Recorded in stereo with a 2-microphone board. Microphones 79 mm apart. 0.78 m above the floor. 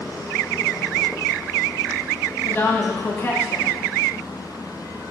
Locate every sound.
2.4 s a woman speaking: 25° left (ahead or behind), 1.4 m